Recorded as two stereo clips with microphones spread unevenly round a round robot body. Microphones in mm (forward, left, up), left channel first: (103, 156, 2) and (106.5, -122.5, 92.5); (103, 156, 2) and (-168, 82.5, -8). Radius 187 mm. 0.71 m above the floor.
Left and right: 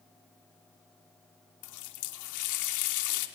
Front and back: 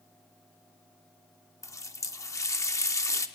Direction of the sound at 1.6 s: 95° left.